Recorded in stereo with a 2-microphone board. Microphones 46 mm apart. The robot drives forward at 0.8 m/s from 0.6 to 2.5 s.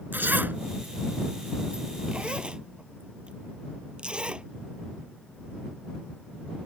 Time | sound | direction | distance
0.1 | a zipper | 45° right (ahead or behind) | ?